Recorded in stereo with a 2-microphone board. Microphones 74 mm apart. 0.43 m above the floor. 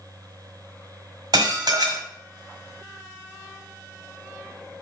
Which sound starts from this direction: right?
Dishes clattering, at 1.3 s.